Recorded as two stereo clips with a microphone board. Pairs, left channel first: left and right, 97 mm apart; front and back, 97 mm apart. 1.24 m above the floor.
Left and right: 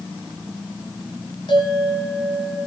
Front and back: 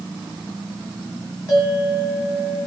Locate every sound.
1.5 s a bell: 55° left, 9.5 m